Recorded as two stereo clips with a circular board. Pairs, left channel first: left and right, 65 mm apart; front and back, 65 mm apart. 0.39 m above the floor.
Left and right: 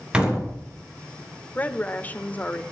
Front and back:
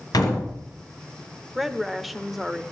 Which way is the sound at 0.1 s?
15° right.